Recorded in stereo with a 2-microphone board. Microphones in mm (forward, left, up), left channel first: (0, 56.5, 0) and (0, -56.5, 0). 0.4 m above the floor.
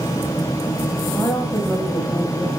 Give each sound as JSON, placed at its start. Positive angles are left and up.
{"t": 1.1, "sound": "a woman speaking", "side_deg": 20, "distance_m": 2.0}